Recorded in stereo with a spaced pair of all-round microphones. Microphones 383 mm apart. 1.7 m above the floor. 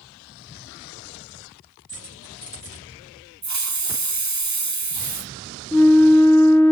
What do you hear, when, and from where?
1.9 s keys jangling: 15° left (ahead or behind), 5 m
3.4 s a hiss: 45° right (ahead or behind), 0.6 m
5.7 s a flute: 5° left (ahead or behind), 0.8 m